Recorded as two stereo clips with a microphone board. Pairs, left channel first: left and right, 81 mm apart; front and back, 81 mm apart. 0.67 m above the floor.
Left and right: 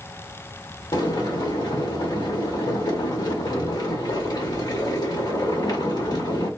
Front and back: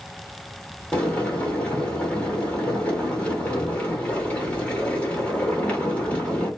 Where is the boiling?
70° left, 1.8 m.